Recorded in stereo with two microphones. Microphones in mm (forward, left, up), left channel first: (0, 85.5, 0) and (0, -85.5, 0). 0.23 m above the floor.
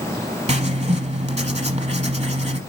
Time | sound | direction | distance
0.5 | writing | 40° right (ahead or behind) | 1.0 m